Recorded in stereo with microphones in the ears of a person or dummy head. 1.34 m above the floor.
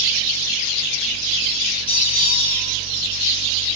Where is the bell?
30° left (ahead or behind), 3.5 m.